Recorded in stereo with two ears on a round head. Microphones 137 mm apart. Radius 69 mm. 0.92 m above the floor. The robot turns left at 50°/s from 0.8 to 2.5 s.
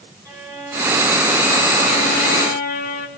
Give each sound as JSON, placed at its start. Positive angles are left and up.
{"t": 0.2, "sound": "a violin", "azimuth_deg": -155, "distance_m": 3.5}